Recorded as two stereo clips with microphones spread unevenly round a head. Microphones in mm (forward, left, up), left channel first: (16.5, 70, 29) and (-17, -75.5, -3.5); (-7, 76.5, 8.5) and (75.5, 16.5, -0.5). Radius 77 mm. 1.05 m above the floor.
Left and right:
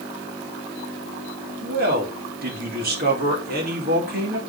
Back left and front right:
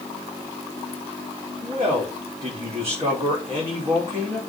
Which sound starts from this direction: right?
A man speaking, at 1.6 s.